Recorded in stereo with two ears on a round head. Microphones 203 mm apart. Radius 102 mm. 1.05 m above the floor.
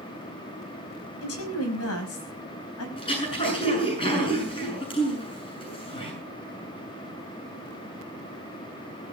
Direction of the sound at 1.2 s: 70° left (ahead or behind).